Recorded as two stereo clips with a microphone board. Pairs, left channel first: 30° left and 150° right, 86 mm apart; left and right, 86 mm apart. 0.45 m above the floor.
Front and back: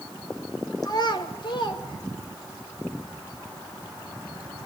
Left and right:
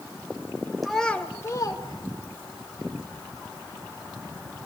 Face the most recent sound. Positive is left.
turn(degrees=75)